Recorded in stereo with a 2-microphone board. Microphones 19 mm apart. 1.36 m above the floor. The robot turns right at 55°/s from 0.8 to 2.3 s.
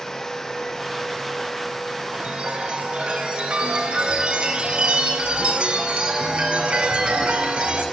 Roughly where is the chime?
Right.